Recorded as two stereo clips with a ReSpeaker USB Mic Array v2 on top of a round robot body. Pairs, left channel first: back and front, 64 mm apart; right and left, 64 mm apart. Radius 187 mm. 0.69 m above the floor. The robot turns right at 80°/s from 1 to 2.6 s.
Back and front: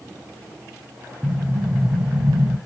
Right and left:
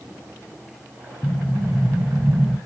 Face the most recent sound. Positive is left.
turn(degrees=50)